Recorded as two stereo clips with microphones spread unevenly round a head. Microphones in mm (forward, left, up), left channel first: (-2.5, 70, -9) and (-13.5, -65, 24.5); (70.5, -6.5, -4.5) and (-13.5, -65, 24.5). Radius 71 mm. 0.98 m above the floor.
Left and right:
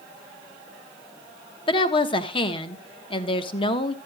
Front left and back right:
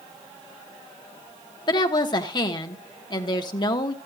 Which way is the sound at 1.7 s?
55° left.